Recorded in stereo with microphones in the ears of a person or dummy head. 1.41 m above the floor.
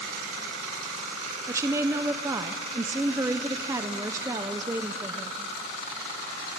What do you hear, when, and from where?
1.5 s a woman speaking: 15° right (ahead or behind), 0.7 m